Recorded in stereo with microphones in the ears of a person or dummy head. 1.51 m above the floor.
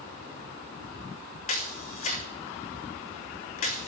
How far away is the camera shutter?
About 1.0 m.